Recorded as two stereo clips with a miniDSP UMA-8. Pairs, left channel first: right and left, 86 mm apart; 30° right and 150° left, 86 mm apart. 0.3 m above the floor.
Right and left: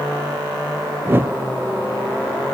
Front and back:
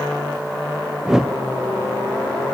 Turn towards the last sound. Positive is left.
turn(degrees=75)